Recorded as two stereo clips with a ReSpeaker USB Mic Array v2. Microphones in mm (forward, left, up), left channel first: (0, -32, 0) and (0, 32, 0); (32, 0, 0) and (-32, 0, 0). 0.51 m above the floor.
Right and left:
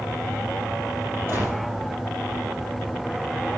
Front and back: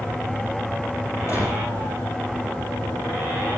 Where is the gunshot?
40° left, 5 m.